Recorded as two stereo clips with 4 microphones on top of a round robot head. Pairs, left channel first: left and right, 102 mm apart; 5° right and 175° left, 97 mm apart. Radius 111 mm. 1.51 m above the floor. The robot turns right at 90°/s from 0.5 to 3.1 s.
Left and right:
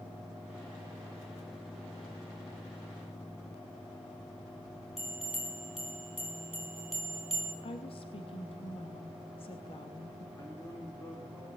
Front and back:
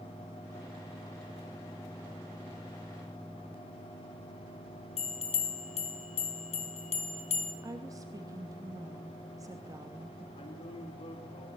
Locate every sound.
5.0 s a bell: straight ahead, 3.5 m
7.6 s a woman speaking: 120° left, 2.5 m
10.3 s a man speaking: 25° left, 5 m